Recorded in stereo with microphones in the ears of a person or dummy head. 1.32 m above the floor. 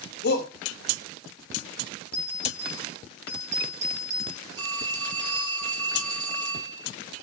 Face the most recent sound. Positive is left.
turn(degrees=-25)  # may be behind; listen again after turning